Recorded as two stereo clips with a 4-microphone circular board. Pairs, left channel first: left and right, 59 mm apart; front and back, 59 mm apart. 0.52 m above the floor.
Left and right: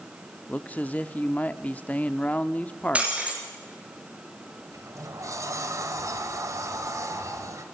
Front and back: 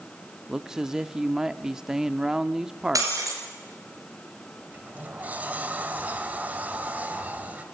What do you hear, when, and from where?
0.5 s a man speaking: 110° left, 0.7 m
3.0 s breaking glass: 160° right, 5.5 m
4.7 s a sliding door: 115° right, 2 m